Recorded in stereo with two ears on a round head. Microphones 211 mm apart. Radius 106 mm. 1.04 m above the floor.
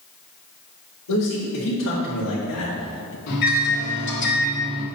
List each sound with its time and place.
1.1 s a man speaking: 80° left, 3.5 m; by 3.2 s 55° left (ahead or behind), 0.7 m
3.3 s a microwave: 50° left (ahead or behind), 2.5 m